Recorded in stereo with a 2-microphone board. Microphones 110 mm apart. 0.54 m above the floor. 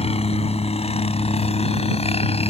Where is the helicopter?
70° left (ahead or behind); by 2.5 s 65° left (ahead or behind).